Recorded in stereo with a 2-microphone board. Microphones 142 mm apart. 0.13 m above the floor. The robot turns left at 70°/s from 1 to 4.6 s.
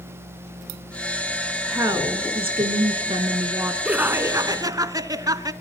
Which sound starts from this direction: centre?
Laughter, at 3.9 s.